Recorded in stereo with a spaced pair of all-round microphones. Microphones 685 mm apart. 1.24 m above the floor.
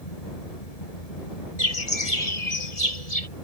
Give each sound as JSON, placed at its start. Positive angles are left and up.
{"t": 0.0, "sound": "a fan", "side_deg": 55}
{"t": 1.6, "sound": "a bird", "side_deg": 55}